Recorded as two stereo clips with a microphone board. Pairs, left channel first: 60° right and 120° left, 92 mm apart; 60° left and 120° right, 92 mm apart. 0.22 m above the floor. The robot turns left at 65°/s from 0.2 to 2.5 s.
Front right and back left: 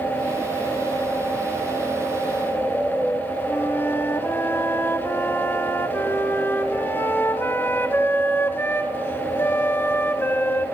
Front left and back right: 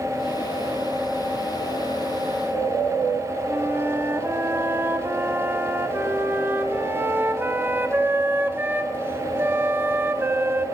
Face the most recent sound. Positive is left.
turn(degrees=-90)